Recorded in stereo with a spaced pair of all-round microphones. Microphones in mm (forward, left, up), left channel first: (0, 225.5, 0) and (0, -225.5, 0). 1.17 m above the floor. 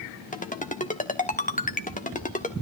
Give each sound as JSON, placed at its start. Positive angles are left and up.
{"t": 0.3, "sound": "a ringtone", "side_deg": 15, "distance_m": 1.2}